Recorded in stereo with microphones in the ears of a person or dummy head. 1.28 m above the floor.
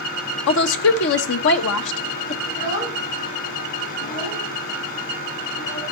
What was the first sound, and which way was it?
A woman speaking, 70° left (ahead or behind).